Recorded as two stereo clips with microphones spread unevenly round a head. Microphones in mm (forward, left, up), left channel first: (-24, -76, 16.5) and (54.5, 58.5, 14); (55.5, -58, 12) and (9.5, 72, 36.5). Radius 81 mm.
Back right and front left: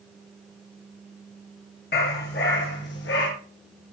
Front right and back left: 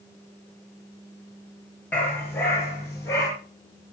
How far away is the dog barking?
About 4.5 m.